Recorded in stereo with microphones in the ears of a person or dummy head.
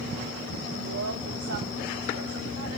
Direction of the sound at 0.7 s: 75° right (ahead or behind).